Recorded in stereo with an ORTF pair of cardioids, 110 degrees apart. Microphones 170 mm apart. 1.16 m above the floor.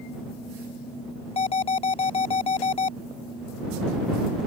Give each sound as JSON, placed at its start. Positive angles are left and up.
{"t": 1.4, "sound": "an alarm", "azimuth_deg": 35}